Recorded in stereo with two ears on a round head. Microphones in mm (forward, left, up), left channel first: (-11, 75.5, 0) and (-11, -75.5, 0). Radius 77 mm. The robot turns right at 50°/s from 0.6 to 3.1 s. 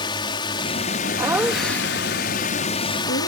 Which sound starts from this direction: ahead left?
A drone, at 0.0 s.